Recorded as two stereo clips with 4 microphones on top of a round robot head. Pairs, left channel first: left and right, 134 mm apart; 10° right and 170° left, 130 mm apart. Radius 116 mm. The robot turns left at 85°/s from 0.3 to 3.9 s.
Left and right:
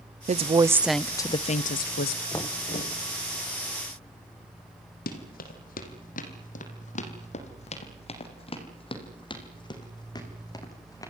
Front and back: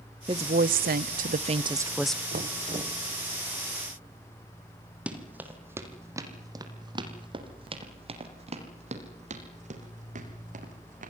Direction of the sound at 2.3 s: 165° left.